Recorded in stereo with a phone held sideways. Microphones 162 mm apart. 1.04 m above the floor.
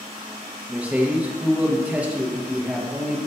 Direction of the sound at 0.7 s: 10° right (ahead or behind).